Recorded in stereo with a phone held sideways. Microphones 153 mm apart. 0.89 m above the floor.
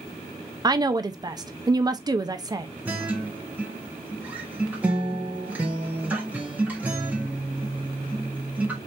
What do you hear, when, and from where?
0.6 s a woman speaking: 25° right (ahead or behind), 0.6 m
2.9 s a guitar: 10° right (ahead or behind), 1.3 m